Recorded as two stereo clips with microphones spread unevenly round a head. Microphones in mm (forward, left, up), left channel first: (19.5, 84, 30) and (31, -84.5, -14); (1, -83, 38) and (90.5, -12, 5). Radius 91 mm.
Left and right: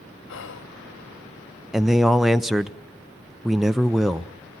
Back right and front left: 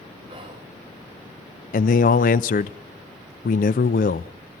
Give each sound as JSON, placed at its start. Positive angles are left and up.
{"t": 0.3, "sound": "whispering", "azimuth_deg": 80, "distance_m": 0.8}
{"t": 1.7, "sound": "a man speaking", "azimuth_deg": -170, "distance_m": 0.5}